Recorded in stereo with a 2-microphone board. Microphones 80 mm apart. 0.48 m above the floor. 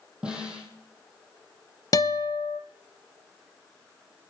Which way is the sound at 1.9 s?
55° left (ahead or behind).